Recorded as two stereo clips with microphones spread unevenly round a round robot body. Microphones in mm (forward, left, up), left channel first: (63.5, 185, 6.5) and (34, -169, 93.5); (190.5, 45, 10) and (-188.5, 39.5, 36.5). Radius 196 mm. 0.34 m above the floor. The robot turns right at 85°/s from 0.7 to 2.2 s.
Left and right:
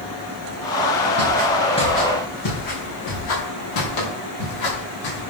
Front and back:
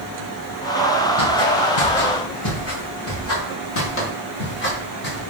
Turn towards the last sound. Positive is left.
turn(degrees=65)